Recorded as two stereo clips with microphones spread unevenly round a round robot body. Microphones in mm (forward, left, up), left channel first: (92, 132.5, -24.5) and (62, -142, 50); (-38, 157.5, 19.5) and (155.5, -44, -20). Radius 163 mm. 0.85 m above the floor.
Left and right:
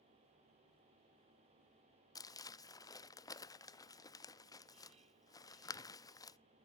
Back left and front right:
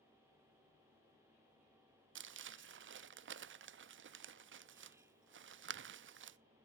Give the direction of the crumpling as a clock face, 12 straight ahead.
12 o'clock.